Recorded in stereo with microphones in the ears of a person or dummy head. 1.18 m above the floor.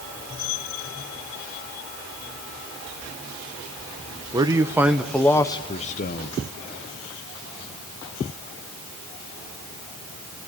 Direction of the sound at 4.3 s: 20° right (ahead or behind).